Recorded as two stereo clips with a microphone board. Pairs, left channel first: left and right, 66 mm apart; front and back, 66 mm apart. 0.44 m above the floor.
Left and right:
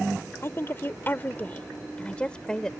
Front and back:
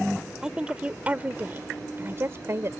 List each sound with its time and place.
0.4 s a woman speaking: 110° left; by 2.7 s 165° left